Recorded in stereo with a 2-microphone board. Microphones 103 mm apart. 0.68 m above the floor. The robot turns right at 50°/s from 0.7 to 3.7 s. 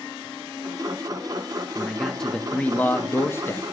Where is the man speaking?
5° right (ahead or behind), 0.5 m; by 3.6 s 25° left (ahead or behind), 0.5 m.